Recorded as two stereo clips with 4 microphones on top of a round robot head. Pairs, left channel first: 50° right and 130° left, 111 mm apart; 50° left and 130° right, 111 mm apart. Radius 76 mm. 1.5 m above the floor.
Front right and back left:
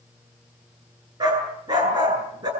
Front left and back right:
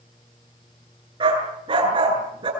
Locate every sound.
1.2 s a dog barking: 175° right, 8.5 m